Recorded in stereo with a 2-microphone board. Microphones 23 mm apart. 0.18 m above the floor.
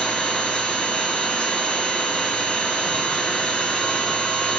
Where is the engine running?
60° left (ahead or behind), 8.5 m.